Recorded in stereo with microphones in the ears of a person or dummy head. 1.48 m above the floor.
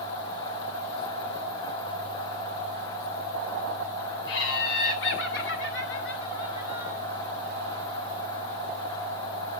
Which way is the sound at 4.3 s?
80° left.